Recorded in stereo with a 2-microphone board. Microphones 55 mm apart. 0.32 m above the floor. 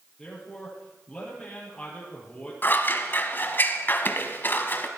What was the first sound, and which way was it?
A man speaking, 10° left (ahead or behind).